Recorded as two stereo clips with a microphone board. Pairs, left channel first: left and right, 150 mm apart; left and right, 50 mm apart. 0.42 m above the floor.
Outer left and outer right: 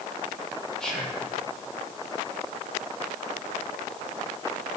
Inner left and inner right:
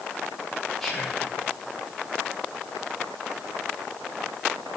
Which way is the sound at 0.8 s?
5° left (ahead or behind).